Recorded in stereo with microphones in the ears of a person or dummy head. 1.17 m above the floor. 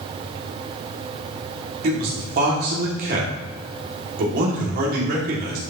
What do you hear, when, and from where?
1.8 s a man speaking: 55° right (ahead or behind), 2.5 m